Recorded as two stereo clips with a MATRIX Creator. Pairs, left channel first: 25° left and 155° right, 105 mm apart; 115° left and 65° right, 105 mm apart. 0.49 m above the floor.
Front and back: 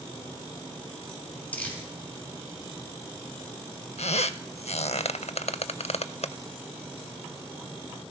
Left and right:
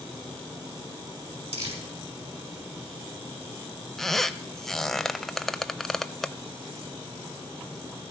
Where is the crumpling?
55° right, 4.5 m.